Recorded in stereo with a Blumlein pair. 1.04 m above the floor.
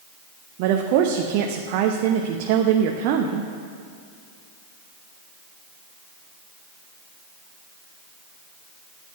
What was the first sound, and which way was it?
A woman speaking, 45° right.